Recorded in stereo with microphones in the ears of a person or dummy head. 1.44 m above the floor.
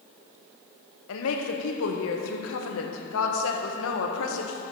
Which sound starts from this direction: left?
A woman speaking, at 1.1 s.